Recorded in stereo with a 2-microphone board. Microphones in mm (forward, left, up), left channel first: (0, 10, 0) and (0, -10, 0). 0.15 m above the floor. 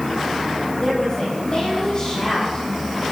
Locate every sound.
0.8 s a woman speaking: 35° left (ahead or behind), 8.5 m